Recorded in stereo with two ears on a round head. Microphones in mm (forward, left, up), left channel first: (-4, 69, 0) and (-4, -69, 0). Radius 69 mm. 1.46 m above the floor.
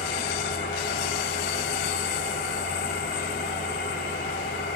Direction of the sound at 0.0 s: 75° left (ahead or behind).